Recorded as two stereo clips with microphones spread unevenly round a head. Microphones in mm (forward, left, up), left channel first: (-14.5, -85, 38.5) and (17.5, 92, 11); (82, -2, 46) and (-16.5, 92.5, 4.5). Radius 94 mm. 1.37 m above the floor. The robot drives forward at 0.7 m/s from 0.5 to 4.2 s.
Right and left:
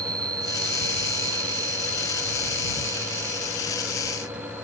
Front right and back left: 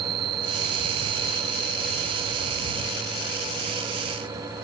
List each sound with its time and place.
0.0 s an insect: 150° left; by 4.7 s 155° left